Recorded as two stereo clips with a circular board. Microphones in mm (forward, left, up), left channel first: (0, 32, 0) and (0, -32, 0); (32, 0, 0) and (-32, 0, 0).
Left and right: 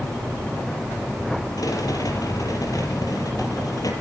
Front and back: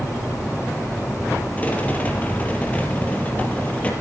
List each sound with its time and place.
1.6 s a rattle: 65° left, 4.5 m